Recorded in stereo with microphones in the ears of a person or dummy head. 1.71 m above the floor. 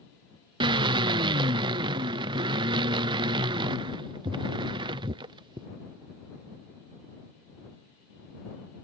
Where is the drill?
25° right (ahead or behind).